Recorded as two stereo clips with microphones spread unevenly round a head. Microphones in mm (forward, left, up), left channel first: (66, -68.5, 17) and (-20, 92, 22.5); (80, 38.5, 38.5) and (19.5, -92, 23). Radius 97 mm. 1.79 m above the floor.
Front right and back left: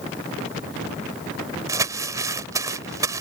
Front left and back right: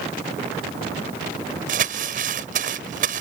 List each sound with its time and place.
1.7 s crumpling: 170° right